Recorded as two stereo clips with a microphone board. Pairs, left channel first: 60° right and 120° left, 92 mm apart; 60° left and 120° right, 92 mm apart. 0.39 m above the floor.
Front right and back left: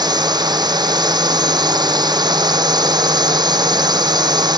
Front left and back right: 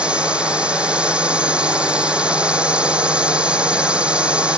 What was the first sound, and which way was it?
A drone, 160° left.